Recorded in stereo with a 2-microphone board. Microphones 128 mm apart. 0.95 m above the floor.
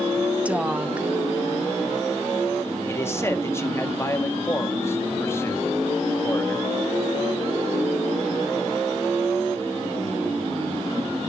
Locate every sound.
0.5 s a woman speaking: 10° right (ahead or behind), 0.9 m
2.9 s a man speaking: 20° left (ahead or behind), 1.3 m